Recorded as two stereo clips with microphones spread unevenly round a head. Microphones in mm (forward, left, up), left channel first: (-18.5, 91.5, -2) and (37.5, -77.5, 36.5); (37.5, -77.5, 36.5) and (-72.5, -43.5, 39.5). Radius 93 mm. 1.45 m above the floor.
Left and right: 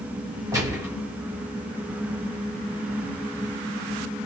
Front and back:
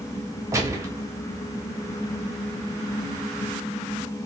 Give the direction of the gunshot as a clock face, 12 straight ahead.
5 o'clock.